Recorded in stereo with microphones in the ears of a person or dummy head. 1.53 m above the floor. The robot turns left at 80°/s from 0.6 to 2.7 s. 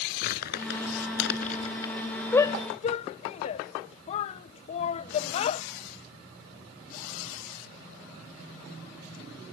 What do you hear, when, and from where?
0.2 s crumpling: 60° left (ahead or behind); by 1.9 s 15° left (ahead or behind)
2.3 s a shout: 10° left (ahead or behind); by 5.6 s 40° left (ahead or behind)